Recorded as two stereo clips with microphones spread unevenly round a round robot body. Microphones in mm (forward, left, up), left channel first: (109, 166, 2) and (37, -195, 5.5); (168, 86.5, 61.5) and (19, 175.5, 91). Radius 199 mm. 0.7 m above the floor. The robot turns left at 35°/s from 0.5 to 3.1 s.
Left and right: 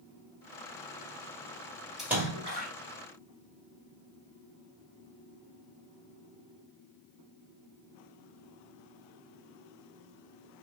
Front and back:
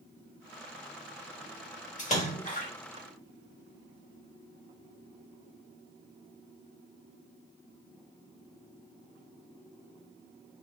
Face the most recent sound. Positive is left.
turn(degrees=-50)